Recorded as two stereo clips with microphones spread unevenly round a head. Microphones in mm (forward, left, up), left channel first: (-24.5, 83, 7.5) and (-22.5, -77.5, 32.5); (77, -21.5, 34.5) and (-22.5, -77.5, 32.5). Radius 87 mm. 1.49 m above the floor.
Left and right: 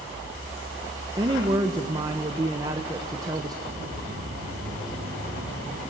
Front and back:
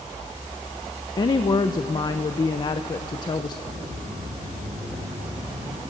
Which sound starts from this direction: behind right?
Footsteps, at 3.6 s.